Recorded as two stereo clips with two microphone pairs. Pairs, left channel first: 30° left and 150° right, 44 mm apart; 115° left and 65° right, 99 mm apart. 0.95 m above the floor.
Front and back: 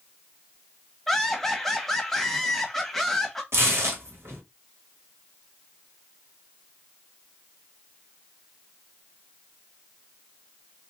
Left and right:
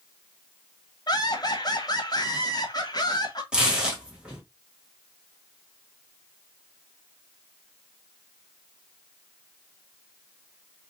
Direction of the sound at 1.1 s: 115° left.